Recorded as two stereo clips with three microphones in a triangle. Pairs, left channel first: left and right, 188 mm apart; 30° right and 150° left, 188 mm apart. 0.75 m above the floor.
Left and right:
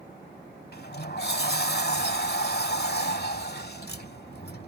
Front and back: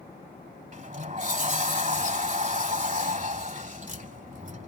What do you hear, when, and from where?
0.7 s a sliding door: 110° left